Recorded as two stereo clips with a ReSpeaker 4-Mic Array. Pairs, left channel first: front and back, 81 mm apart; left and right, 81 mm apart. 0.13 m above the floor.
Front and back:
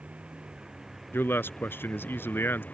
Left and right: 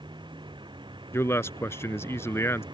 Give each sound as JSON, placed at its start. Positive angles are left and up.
{"t": 0.0, "sound": "a vehicle", "azimuth_deg": -105}
{"t": 1.1, "sound": "a man speaking", "azimuth_deg": 50}